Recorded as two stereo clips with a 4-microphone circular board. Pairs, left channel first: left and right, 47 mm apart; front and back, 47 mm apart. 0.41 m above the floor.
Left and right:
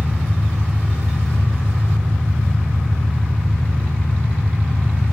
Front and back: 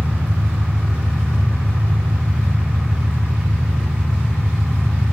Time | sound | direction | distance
0.0 | an engine running | 120° right | 4.5 m